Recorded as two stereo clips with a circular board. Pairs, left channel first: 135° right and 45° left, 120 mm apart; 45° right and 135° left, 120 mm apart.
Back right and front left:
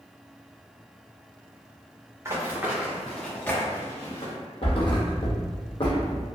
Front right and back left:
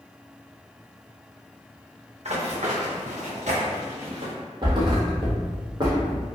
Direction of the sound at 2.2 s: 110° left.